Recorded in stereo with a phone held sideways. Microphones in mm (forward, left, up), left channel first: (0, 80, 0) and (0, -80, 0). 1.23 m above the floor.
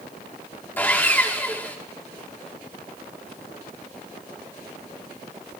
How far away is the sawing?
About 1.7 m.